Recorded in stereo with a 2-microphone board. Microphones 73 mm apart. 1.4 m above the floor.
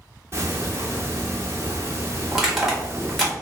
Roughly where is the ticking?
Right.